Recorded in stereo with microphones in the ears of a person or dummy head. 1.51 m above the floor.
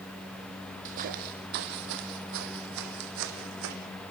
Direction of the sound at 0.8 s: 40° right (ahead or behind).